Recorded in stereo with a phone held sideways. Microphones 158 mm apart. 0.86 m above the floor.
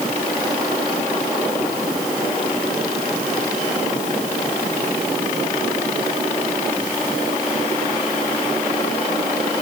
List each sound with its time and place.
Only background noise.